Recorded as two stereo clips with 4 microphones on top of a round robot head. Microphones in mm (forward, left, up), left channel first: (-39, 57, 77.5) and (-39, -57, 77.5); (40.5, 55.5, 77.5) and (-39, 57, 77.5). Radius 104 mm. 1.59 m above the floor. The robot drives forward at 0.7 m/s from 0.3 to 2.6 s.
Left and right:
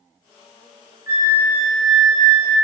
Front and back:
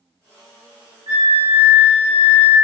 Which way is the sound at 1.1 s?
150° right.